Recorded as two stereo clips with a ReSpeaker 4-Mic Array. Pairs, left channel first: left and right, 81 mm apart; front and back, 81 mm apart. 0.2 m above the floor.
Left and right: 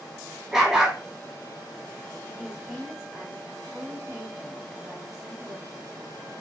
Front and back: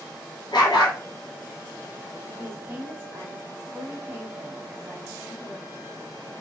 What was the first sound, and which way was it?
A dog barking, 10° right.